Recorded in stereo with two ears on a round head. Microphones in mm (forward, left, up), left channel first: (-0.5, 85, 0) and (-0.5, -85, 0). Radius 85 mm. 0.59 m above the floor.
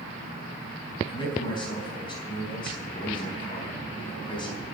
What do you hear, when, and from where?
1.1 s a man speaking: 25° left (ahead or behind), 4.5 m